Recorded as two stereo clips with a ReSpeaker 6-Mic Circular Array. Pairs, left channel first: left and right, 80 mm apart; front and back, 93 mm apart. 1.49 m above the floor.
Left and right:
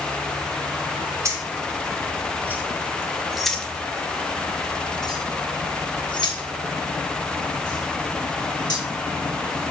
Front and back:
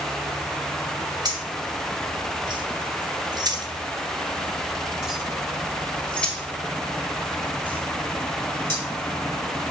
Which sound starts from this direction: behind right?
Keys jangling, at 1.2 s.